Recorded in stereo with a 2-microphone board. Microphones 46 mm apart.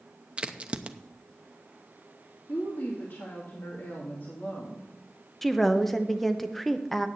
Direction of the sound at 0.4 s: 25° right (ahead or behind).